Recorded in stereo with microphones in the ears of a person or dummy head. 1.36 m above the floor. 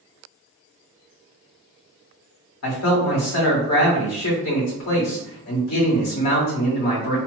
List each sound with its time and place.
2.6 s a man speaking: 75° left (ahead or behind), 1.8 m